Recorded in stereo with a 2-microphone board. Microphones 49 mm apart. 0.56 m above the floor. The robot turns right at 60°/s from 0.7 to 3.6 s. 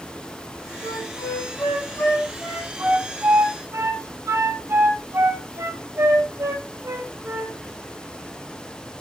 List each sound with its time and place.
0.8 s a flute: 75° left (ahead or behind), 8 m; by 7.5 s 60° right (ahead or behind), 8 m